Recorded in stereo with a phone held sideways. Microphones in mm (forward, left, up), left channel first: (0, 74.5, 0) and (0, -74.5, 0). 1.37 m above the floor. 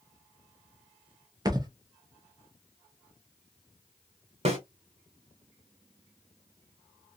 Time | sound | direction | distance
1.4 | a thud | 25° right (ahead or behind) | 0.7 m
4.5 | a snare drum | 45° right (ahead or behind) | 1.4 m